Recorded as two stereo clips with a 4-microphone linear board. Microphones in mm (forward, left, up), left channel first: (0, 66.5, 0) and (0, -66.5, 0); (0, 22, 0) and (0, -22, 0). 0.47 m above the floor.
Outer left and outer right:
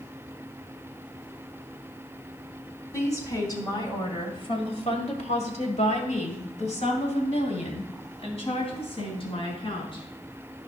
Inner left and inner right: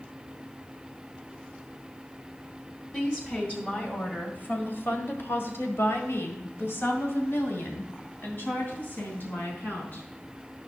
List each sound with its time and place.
2.9 s a woman speaking: 25° left (ahead or behind), 2.5 m; by 10.0 s 45° left (ahead or behind), 4.5 m